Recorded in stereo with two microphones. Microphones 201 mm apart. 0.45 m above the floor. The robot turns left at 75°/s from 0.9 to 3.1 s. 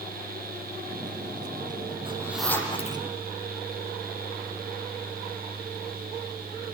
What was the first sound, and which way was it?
A zipper, 25° right (ahead or behind).